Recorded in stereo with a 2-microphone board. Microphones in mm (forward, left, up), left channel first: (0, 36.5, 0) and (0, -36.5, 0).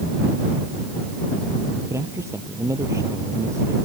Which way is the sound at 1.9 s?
45° right (ahead or behind).